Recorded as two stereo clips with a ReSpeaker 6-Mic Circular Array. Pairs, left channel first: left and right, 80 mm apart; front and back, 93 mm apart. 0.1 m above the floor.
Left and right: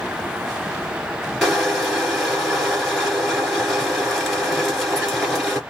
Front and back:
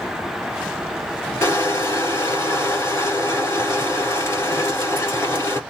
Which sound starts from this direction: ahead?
Crushing, at 1.4 s.